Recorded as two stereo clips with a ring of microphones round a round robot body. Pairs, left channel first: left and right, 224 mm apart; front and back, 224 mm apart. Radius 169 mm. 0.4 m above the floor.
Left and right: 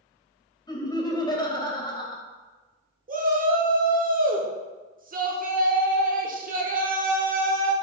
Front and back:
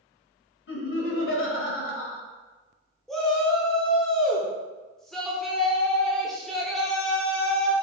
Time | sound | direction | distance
0.7 | laughter | 20° left | 1.8 m
3.1 | a shout | 85° right | 1.1 m